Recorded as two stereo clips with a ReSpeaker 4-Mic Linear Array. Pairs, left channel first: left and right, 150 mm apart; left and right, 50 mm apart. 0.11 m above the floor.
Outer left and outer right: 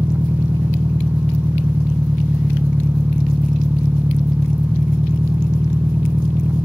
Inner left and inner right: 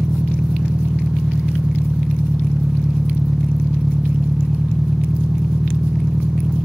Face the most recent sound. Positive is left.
turn(degrees=-10)  # may be behind; listen again after turning